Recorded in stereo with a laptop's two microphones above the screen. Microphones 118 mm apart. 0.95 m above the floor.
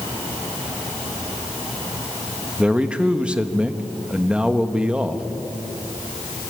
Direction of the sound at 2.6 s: 10° right (ahead or behind).